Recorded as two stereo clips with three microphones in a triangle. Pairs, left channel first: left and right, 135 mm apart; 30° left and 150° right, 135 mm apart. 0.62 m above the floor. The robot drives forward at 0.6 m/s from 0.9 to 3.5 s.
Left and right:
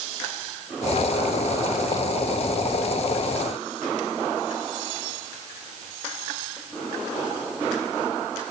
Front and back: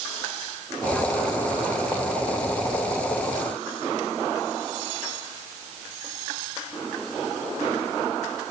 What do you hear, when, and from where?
Only background noise.